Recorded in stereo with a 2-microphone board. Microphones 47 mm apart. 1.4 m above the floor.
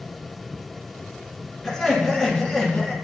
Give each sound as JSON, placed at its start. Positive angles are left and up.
{"t": 1.6, "sound": "laughter", "side_deg": 5, "distance_m": 2.5}